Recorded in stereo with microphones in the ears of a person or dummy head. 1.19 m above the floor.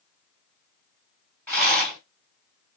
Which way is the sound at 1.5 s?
10° left (ahead or behind).